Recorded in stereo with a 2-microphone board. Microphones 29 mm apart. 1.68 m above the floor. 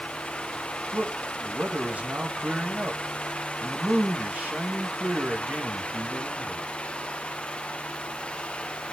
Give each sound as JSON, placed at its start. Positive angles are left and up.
{"t": 0.9, "sound": "a man speaking", "side_deg": -50, "distance_m": 3.0}